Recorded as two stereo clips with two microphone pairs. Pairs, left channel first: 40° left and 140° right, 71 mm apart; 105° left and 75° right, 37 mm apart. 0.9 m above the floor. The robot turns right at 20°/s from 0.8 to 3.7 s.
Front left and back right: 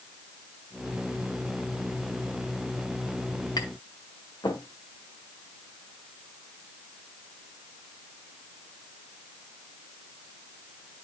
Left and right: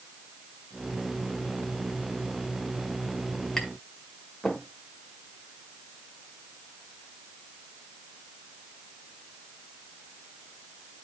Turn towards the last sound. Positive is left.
turn(degrees=30)